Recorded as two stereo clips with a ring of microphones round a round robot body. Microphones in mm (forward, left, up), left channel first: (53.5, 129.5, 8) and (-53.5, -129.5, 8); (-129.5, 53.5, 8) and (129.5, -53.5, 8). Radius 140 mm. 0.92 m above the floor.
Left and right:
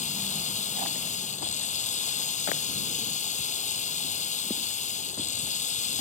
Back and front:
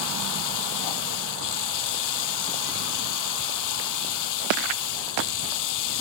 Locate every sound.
0.0 s running water: 135° left